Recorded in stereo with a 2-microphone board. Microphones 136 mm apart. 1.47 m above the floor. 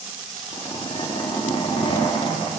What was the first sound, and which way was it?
A zipper, 40° left (ahead or behind).